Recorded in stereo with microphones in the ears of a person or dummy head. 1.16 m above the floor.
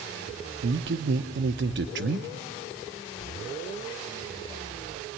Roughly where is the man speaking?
Right.